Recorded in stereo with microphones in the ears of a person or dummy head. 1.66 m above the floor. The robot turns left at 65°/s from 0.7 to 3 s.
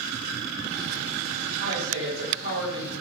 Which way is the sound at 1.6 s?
70° right.